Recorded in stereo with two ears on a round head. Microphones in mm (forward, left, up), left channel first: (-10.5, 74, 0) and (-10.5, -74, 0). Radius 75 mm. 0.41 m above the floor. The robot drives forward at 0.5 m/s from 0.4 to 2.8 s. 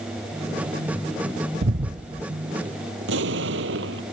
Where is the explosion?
90° right.